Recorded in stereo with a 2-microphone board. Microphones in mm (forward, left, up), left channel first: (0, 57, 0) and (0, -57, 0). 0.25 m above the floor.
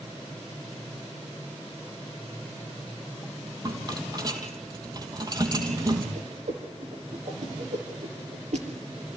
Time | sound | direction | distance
3.6 | a rattle | 35° right (ahead or behind) | 3 m
6.2 | a whoosh | 70° right (ahead or behind) | 5.5 m